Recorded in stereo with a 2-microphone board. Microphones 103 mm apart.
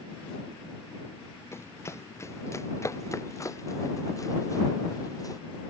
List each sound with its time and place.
1.5 s running footsteps: 25° left (ahead or behind); by 5.4 s 35° left (ahead or behind)